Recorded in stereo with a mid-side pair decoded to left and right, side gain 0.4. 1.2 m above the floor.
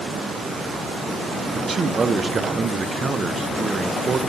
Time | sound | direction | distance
1.5 | a man speaking | 40° right | 0.6 m